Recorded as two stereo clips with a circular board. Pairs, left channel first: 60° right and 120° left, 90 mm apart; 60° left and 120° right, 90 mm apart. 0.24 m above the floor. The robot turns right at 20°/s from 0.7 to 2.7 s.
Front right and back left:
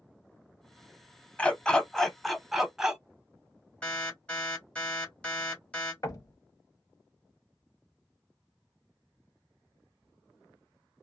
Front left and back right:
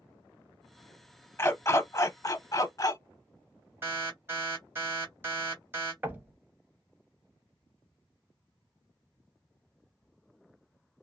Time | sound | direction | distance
1.4 | a dog barking | 10° left | 0.6 m
3.8 | an alarm | 120° right | 2 m
6.0 | knocking | 65° right | 0.9 m